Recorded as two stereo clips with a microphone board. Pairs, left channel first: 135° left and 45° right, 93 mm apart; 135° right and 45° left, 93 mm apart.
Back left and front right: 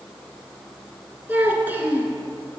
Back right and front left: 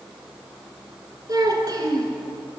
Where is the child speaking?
20° left, 1.2 m.